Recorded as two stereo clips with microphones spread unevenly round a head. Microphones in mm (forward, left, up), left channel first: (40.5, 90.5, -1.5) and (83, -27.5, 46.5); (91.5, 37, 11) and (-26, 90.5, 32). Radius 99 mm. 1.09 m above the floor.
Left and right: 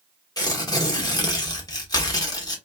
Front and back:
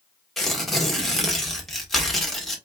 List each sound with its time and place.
0.4 s tearing paper: 60° left, 1.4 m